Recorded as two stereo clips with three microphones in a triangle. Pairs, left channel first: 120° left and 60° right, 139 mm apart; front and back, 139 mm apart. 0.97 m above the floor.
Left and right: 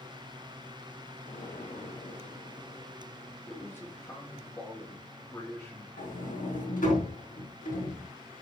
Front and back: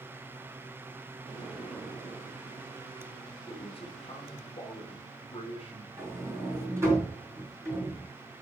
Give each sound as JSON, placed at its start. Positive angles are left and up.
{"t": 1.2, "sound": "an explosion", "azimuth_deg": 95, "distance_m": 3.0}
{"t": 3.5, "sound": "a man speaking", "azimuth_deg": 50, "distance_m": 2.5}
{"t": 6.0, "sound": "a sliding door", "azimuth_deg": 110, "distance_m": 4.0}